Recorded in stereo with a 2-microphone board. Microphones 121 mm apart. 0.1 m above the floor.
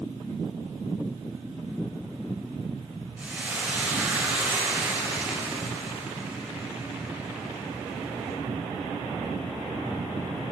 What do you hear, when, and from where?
3.2 s frying: 10° right (ahead or behind), 4 m